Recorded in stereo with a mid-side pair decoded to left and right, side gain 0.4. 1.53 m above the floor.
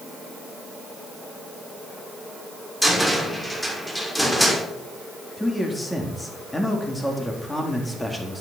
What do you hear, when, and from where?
2.8 s a cupboard door: 5° left, 6 m
5.4 s a man speaking: 15° left, 4 m